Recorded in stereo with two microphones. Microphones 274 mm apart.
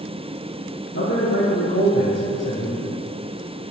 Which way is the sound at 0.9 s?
65° left (ahead or behind).